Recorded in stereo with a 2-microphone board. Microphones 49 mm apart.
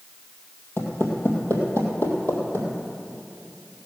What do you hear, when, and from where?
0.8 s footsteps: 55° left (ahead or behind), 3 m; by 2.7 s 60° left (ahead or behind), 3 m